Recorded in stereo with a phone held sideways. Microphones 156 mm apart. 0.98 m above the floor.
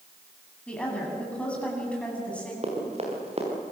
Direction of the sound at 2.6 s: 40° right (ahead or behind).